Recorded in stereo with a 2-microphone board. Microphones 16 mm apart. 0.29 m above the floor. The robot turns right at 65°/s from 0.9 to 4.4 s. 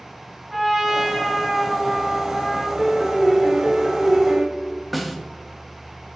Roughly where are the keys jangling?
I don't hear keys jangling.